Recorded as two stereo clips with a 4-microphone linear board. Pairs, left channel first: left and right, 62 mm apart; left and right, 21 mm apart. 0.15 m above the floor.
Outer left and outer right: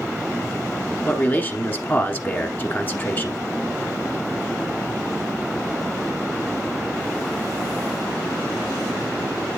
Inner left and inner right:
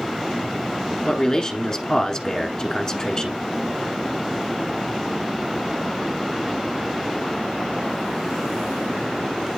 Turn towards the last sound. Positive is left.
turn(degrees=30)  # may be behind; listen again after turning